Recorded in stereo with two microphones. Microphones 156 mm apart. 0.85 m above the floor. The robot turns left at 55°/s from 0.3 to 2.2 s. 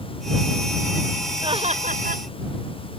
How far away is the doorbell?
No doorbell in this recording.